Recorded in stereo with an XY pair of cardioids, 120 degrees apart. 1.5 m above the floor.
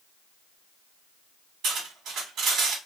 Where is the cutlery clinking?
70° right, 1.9 m.